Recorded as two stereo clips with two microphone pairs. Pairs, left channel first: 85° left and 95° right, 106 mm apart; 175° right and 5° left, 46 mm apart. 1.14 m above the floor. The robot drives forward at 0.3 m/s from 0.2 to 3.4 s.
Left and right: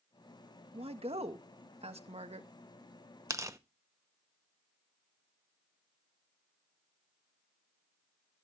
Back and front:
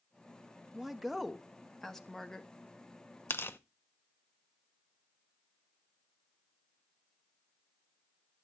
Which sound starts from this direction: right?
A woman speaking, at 0.7 s.